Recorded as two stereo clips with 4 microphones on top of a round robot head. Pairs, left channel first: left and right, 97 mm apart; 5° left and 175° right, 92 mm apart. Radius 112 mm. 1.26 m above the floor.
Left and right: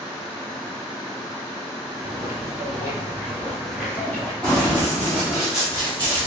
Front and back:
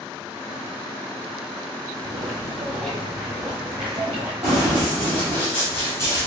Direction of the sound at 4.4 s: 150° right.